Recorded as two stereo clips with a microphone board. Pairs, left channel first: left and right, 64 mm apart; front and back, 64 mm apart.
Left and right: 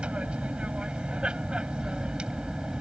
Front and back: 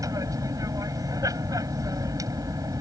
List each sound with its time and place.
0.0 s an aircraft: 165° right; by 2.8 s 170° right